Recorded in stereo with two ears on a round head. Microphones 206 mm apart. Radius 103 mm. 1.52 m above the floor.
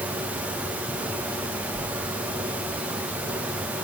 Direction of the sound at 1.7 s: 65° right (ahead or behind).